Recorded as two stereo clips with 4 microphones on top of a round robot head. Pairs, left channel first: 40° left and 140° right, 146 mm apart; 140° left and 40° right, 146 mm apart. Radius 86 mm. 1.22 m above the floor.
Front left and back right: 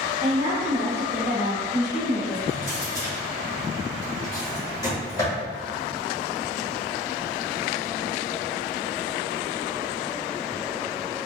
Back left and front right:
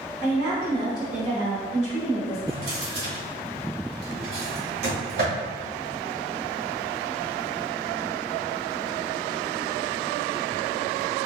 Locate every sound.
0.2 s a woman speaking: 75° right, 1.0 m
2.5 s a drawer: 25° right, 1.3 m